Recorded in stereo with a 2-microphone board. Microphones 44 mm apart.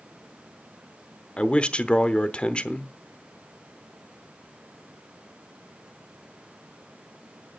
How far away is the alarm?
I don't hear an alarm.